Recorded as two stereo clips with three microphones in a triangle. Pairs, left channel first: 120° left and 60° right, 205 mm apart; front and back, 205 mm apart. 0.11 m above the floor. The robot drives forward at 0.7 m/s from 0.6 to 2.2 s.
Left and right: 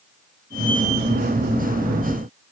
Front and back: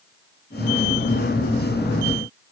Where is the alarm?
I don't hear an alarm.